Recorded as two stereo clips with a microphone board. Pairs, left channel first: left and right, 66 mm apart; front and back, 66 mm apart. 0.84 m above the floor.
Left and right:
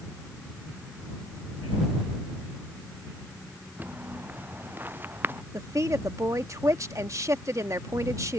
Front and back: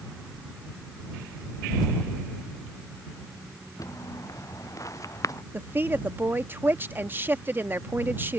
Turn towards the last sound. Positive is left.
turn(degrees=-125)